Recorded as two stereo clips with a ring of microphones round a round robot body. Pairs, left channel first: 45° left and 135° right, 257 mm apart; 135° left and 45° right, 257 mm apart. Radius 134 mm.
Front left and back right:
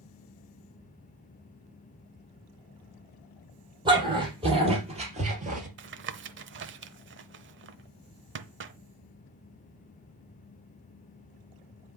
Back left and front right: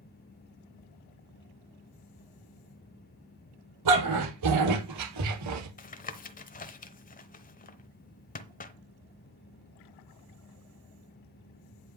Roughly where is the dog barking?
Ahead right.